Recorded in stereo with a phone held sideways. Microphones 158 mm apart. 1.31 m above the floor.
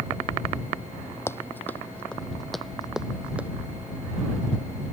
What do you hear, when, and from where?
1.3 s running footsteps: 15° left (ahead or behind); by 3.5 s 10° right (ahead or behind)